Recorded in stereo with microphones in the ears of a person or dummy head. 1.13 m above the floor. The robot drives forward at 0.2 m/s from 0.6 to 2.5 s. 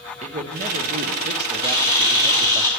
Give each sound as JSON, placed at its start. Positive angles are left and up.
{"t": 0.2, "sound": "a man speaking", "side_deg": -40, "distance_m": 0.7}
{"t": 1.6, "sound": "a camera shutter", "side_deg": -30, "distance_m": 1.6}